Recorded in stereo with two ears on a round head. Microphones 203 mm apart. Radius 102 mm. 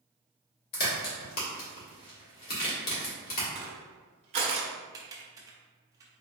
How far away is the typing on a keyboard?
About 0.7 m.